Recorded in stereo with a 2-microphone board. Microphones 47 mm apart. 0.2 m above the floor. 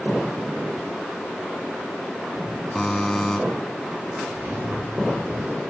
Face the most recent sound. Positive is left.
turn(degrees=-65)  # may be behind; listen again after turning